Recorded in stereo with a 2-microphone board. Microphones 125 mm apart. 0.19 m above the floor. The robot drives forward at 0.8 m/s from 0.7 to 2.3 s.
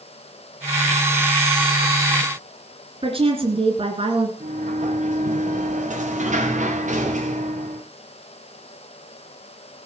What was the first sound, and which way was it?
A woman speaking, 50° right (ahead or behind).